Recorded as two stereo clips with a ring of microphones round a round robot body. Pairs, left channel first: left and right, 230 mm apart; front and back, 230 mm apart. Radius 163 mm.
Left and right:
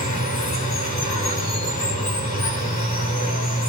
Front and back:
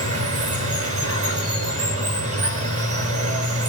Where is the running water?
165° left, 6.5 m.